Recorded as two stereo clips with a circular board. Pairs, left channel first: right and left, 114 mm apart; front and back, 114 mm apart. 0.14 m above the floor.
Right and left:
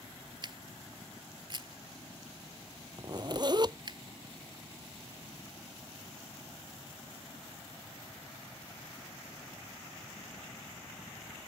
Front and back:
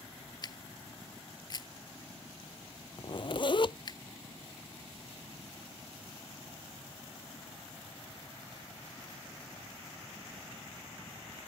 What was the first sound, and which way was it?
A camera shutter, 45° left.